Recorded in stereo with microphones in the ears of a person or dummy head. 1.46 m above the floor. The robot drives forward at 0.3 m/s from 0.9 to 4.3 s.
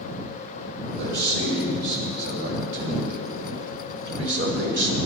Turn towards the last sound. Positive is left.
turn(degrees=-70)  # may be behind; listen again after turning